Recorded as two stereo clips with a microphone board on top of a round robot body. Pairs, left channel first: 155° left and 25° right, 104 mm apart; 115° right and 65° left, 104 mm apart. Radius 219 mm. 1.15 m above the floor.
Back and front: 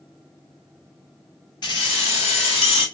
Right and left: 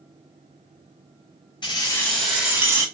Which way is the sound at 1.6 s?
160° right.